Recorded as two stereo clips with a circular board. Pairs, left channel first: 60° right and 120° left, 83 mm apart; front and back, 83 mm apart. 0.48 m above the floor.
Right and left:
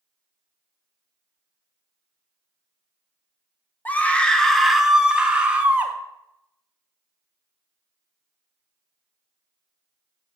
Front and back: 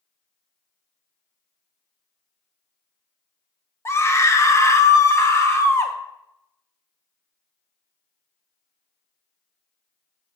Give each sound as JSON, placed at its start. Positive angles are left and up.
{"t": 3.9, "sound": "a scream", "azimuth_deg": -15, "distance_m": 0.9}